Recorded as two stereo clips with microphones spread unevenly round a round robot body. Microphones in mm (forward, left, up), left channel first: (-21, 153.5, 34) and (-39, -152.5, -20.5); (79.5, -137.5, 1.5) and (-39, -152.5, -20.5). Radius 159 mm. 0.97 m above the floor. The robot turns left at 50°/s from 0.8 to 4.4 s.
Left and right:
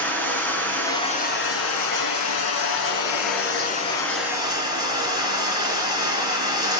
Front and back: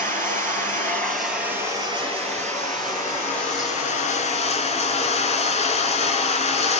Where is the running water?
170° left, 3 m; by 6.8 s 10° right, 3 m.